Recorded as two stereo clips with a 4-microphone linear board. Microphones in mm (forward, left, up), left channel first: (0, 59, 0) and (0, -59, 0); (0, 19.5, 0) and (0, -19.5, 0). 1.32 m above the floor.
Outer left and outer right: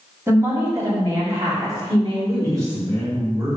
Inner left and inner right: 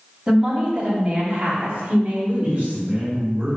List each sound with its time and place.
0.3 s a woman speaking: 20° right (ahead or behind), 2.5 m; by 2.8 s 45° right (ahead or behind), 3 m
2.4 s a man speaking: 35° right (ahead or behind), 2.5 m